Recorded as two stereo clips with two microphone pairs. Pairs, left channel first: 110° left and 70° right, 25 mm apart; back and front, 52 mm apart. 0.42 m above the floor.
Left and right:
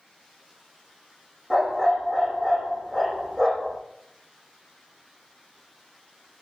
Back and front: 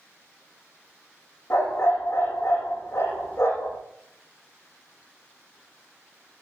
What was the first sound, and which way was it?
A dog barking, 145° right.